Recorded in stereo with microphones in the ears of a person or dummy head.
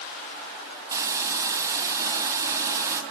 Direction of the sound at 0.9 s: 20° right (ahead or behind).